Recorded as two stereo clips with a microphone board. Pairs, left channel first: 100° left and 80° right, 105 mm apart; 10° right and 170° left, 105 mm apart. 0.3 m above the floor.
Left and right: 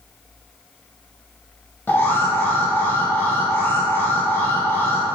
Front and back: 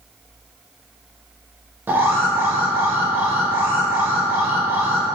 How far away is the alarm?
About 0.6 m.